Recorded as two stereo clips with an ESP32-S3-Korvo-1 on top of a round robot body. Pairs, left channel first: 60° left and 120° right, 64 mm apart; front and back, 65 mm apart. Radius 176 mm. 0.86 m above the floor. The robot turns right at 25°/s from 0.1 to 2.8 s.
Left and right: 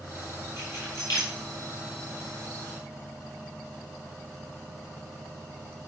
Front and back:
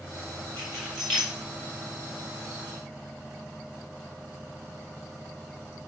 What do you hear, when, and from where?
0.6 s keys jangling: 75° left, 3 m; by 1.3 s 95° left, 3 m